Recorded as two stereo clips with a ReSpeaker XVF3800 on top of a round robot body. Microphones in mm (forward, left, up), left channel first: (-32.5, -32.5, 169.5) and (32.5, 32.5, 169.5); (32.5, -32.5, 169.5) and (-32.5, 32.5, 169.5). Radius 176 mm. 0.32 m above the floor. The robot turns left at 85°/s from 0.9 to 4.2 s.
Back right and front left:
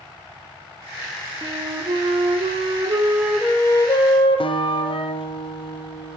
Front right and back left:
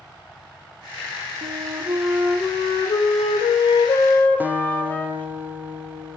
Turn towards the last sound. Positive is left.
turn(degrees=-155)